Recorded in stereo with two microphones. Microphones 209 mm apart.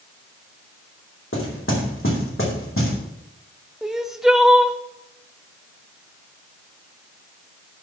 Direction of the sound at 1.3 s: 75° left (ahead or behind).